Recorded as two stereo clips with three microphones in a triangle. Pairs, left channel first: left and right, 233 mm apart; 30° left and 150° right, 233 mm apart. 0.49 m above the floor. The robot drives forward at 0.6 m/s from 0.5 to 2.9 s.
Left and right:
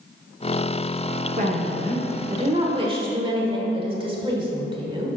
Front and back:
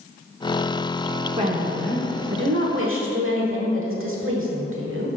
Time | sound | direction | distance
1.4 | a woman speaking | 110° right | 0.9 m